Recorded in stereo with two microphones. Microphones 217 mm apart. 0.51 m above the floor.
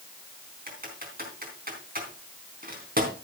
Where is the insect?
I don't hear an insect.